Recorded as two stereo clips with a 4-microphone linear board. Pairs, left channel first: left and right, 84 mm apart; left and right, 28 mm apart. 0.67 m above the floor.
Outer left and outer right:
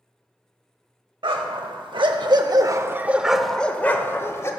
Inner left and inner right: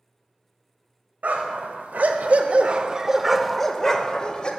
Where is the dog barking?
85° right, 1.1 m; by 4.5 s 35° left (ahead or behind), 1.0 m.